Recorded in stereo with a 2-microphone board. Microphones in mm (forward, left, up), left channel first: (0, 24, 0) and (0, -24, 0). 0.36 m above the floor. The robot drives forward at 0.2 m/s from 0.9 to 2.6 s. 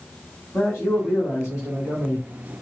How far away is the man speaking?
About 2.5 m.